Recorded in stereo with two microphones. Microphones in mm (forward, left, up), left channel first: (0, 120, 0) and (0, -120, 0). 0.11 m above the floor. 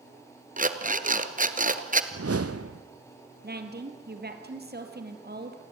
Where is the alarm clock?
35° right (ahead or behind), 1.1 m.